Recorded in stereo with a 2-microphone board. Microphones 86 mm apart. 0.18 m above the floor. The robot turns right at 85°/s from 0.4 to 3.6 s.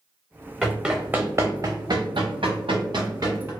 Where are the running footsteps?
Centre (ahead or behind), 0.7 m; by 3.5 s 30° right (ahead or behind), 1.4 m.